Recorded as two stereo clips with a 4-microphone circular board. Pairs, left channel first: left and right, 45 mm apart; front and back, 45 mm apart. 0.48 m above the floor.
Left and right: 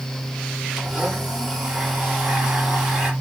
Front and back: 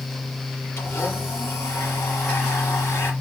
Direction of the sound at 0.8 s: 5° right.